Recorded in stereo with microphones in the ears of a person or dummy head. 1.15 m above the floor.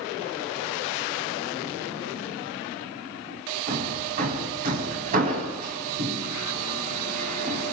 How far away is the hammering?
About 5.5 m.